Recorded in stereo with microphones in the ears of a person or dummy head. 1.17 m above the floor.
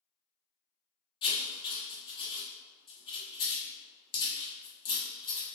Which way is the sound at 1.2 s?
20° left (ahead or behind).